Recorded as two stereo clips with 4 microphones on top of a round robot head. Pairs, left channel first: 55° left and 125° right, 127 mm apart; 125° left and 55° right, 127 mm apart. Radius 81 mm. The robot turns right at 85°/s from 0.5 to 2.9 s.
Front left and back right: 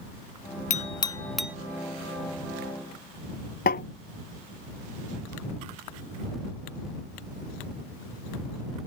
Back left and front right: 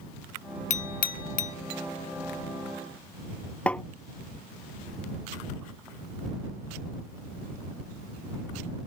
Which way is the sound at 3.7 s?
40° left.